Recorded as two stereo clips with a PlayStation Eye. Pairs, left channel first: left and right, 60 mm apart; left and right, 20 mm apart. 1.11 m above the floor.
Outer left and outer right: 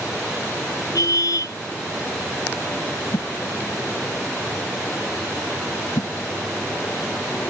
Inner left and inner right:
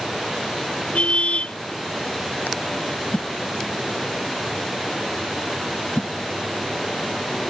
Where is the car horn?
80° left.